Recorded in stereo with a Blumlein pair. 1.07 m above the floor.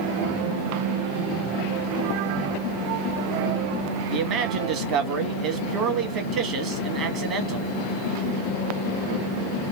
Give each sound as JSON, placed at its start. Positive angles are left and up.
{"t": 4.1, "sound": "a man speaking", "azimuth_deg": -35, "distance_m": 1.2}